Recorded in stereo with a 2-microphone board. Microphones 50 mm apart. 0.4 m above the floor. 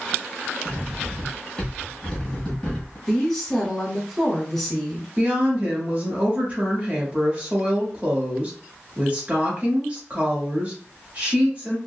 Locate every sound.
0.7 s cutlery clinking: 15° left (ahead or behind), 1.6 m
3.1 s a woman speaking: centre (ahead or behind), 0.9 m
5.2 s a woman speaking: 30° right (ahead or behind), 1.2 m